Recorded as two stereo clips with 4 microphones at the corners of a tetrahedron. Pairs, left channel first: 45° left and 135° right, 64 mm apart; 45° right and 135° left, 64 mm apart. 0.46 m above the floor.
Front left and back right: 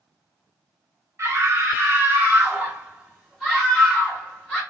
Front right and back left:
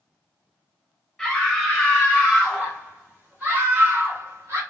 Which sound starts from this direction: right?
A scream, at 1.2 s.